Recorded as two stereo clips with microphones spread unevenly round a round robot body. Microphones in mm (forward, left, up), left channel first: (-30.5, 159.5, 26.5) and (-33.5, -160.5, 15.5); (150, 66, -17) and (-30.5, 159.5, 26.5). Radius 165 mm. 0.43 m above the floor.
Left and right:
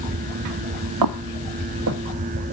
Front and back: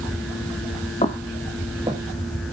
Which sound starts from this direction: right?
Footsteps, at 1.0 s.